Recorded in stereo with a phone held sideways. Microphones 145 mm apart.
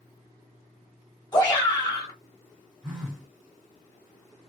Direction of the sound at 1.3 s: 30° left (ahead or behind).